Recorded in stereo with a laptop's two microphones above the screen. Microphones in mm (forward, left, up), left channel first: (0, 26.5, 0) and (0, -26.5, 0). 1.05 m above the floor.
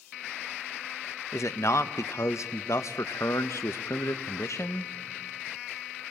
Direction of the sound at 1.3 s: 65° left (ahead or behind).